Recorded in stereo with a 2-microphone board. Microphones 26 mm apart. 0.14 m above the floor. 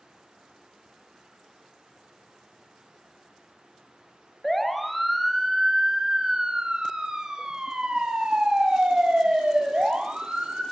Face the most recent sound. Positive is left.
turn(degrees=-60)  # may be behind; listen again after turning